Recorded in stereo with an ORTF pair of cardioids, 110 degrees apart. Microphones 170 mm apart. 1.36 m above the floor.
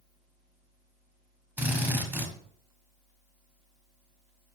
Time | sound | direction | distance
1.6 | a drill | 10° right | 0.8 m